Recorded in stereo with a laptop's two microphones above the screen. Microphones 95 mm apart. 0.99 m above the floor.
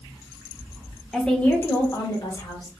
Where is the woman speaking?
Centre (ahead or behind), 1.0 m; by 2.7 s 55° left (ahead or behind), 1.5 m.